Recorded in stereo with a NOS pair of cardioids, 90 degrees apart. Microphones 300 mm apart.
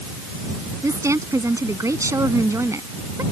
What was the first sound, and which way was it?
A woman speaking, 10° right.